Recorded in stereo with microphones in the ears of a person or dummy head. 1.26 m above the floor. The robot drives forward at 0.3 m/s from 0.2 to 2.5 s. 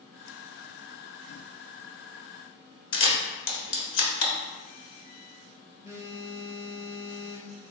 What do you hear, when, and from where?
2.9 s a camera shutter: 60° left (ahead or behind), 1.0 m
5.8 s a phone buzzing: 15° right (ahead or behind), 0.7 m